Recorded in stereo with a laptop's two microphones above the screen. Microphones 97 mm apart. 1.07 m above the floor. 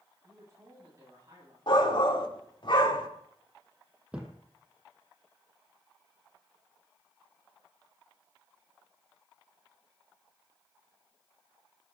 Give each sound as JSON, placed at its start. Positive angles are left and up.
{"t": 0.2, "sound": "a man speaking", "side_deg": -35, "distance_m": 9.0}
{"t": 1.7, "sound": "a shout", "side_deg": 55, "distance_m": 2.5}
{"t": 4.1, "sound": "a thud", "side_deg": -10, "distance_m": 2.0}